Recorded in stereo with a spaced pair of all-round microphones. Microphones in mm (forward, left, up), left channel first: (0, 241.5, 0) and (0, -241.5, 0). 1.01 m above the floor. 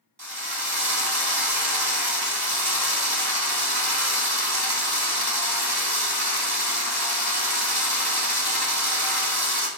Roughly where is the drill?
Right.